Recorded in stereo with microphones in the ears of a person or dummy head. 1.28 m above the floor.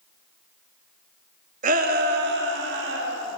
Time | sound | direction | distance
1.6 | a shout | 45° right (ahead or behind) | 2 m